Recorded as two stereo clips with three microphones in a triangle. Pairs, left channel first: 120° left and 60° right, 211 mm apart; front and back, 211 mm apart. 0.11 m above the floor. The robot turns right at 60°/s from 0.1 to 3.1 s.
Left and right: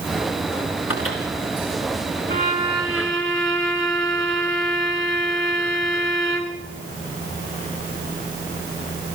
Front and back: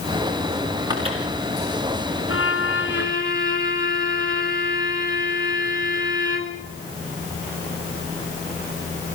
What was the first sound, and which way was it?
A microwave, 110° left.